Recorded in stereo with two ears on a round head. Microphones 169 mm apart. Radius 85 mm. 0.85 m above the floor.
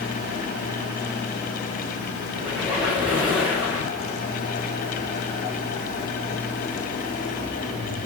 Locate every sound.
2.4 s a squeak: 5° right (ahead or behind), 4.5 m